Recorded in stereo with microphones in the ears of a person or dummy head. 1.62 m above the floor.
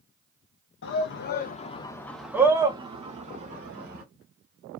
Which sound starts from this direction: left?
A shout, at 0.8 s.